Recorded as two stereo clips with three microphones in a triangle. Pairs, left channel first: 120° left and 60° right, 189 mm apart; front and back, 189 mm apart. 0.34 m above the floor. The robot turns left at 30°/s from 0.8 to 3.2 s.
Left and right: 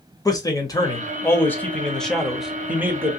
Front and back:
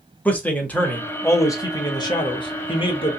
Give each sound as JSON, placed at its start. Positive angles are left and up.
{"t": 0.2, "sound": "a man speaking", "azimuth_deg": 70, "distance_m": 0.9}